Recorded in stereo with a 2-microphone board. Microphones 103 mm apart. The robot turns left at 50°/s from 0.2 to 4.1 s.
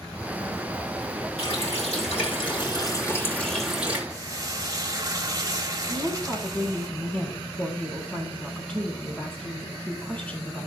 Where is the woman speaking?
15° left (ahead or behind), 4.5 m.